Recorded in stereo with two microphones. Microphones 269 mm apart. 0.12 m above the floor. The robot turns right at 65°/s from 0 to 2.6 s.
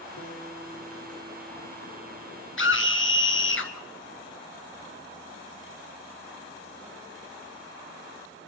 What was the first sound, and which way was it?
A guitar, 115° left.